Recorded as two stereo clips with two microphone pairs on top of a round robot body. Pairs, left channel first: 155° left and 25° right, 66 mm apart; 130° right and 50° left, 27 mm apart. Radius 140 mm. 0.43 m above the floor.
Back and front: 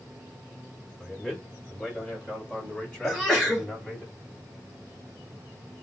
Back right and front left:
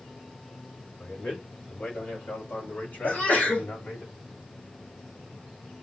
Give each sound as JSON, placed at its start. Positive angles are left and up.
{"t": 1.0, "sound": "a man speaking", "azimuth_deg": -130, "distance_m": 2.5}
{"t": 3.0, "sound": "a sneeze", "azimuth_deg": -130, "distance_m": 3.0}